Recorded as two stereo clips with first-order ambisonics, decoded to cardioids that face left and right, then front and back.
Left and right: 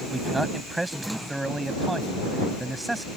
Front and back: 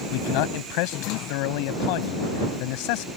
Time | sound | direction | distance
0.1 | a man speaking | 5° right | ?